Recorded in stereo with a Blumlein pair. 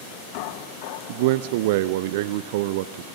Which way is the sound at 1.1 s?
50° right.